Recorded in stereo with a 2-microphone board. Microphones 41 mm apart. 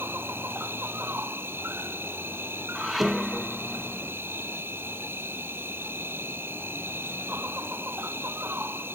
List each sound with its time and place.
0.0 s an insect: 55° right (ahead or behind)
2.8 s dishes clattering: centre (ahead or behind)